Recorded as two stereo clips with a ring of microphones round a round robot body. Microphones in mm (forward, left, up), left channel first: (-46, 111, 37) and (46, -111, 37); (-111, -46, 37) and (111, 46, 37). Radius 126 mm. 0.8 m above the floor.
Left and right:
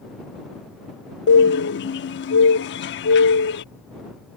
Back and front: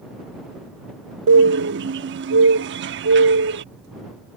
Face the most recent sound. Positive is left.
turn(degrees=65)